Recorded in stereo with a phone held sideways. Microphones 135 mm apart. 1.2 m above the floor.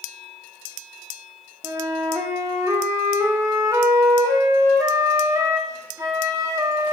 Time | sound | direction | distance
1.6 | a flute | 20° right (ahead or behind) | 0.5 m